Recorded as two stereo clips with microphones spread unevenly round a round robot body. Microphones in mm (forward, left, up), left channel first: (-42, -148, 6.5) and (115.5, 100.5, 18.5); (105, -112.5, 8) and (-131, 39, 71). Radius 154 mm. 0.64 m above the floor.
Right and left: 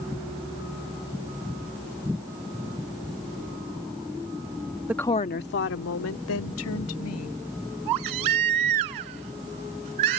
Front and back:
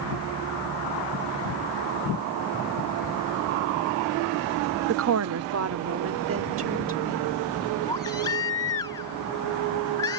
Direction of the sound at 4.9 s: 130° left.